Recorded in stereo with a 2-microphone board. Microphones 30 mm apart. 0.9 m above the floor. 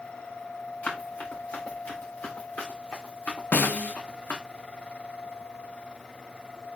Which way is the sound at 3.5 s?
65° left (ahead or behind).